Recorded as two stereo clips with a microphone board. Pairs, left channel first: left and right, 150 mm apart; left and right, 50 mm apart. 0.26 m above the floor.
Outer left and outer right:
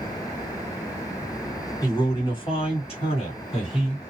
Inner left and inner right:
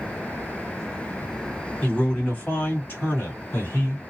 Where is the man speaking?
30° left (ahead or behind), 1.8 m; by 4.0 s 40° left (ahead or behind), 2.0 m.